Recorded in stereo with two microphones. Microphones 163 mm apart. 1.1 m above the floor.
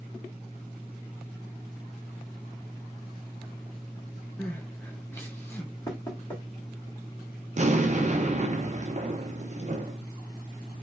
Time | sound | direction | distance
4.4 | crying | 15° left (ahead or behind) | 0.8 m
5.9 | knocking | 25° left (ahead or behind) | 1.8 m
7.6 | an explosion | 45° right (ahead or behind) | 0.6 m